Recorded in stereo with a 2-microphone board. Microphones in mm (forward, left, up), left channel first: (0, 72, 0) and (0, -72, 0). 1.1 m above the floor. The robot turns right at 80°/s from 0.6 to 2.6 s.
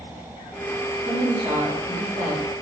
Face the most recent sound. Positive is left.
turn(degrees=-30)